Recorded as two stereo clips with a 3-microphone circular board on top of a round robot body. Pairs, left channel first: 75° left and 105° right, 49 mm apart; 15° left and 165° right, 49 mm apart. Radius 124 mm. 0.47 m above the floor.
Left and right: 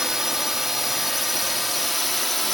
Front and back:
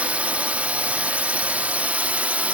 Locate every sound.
0.0 s a drone: straight behind; by 2.5 s 160° left